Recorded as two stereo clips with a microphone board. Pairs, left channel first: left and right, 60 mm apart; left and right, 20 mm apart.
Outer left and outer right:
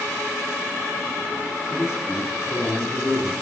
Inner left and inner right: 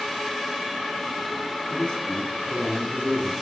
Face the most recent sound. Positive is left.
turn(degrees=55)  # may be behind; listen again after turning